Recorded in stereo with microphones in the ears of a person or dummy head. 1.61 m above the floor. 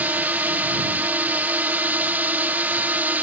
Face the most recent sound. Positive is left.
turn(degrees=-10)  # may be behind; listen again after turning